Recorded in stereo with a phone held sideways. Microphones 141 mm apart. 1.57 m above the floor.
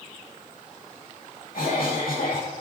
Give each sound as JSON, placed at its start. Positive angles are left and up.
{"t": 1.5, "sound": "a cough", "side_deg": 90, "distance_m": 3.0}